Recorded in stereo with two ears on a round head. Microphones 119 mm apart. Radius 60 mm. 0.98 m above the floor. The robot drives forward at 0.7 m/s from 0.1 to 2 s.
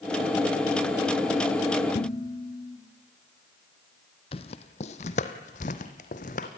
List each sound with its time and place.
1.9 s dishes clattering: 45° left (ahead or behind), 1.9 m
4.3 s footsteps: 45° left (ahead or behind), 1.5 m; by 6.5 s 60° left (ahead or behind), 2.5 m